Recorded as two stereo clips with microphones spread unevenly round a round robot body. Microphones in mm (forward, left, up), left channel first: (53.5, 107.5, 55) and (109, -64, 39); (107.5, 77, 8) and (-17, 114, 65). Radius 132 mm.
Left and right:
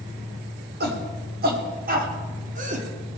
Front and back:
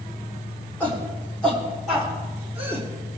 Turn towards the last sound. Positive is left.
turn(degrees=-105)